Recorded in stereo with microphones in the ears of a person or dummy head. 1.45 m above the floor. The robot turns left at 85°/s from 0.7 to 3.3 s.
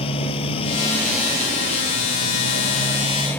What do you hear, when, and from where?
0.0 s a motorcycle: 35° left; by 3.4 s 175° left